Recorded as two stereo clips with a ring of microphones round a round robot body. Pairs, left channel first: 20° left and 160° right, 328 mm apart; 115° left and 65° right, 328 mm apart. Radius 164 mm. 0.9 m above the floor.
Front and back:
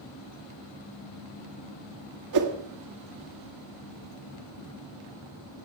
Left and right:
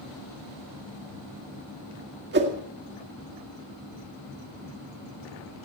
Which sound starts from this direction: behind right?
A whoosh, at 2.3 s.